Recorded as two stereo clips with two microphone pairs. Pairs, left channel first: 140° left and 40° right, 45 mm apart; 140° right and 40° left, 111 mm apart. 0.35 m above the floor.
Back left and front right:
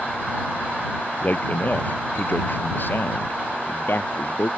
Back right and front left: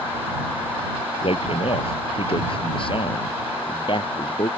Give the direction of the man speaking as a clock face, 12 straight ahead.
6 o'clock.